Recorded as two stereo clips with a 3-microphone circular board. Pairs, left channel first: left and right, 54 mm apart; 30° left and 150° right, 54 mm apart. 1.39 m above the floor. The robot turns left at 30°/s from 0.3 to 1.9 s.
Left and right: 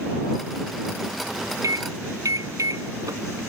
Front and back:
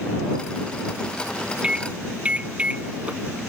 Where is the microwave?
75° right; by 3.4 s 80° right.